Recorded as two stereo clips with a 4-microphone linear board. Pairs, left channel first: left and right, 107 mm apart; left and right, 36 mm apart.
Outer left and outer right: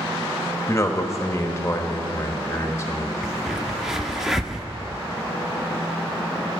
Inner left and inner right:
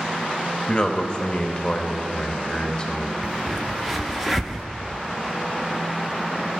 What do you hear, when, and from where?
0.7 s a man speaking: 25° left (ahead or behind), 0.9 m
3.2 s a crack: 5° right (ahead or behind), 0.6 m